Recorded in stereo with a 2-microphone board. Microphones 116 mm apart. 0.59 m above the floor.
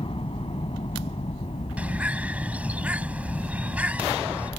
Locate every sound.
0.0 s a helicopter: 55° left (ahead or behind); by 4.6 s 75° left (ahead or behind)
1.8 s a bird: 10° right (ahead or behind)